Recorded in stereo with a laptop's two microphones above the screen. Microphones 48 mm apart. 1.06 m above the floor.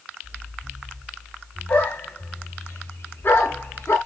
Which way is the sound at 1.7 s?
35° left (ahead or behind).